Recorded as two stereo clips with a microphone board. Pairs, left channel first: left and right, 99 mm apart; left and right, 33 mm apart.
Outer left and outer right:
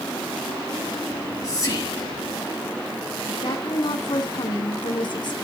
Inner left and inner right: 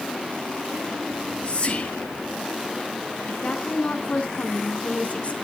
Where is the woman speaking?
50° left (ahead or behind), 3.5 m.